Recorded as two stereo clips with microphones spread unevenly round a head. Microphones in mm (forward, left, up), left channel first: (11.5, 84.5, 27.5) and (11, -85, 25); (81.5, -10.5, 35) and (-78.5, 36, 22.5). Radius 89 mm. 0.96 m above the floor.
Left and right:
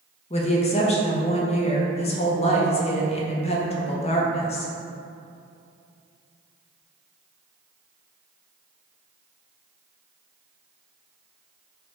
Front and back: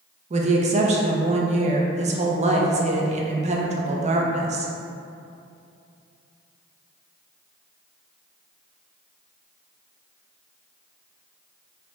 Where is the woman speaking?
135° left, 0.6 m.